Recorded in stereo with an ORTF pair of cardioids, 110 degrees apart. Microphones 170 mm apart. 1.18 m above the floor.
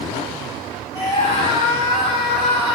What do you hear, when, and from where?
0.9 s a scream: 35° left, 1.6 m; by 2.8 s 60° left, 2.5 m